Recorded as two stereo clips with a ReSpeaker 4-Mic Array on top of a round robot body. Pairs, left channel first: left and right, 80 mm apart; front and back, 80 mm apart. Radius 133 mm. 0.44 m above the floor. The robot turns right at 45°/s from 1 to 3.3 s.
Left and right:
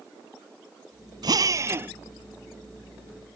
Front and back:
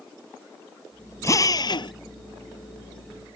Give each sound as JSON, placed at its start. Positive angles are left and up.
{"t": 1.2, "sound": "a drill", "azimuth_deg": -55}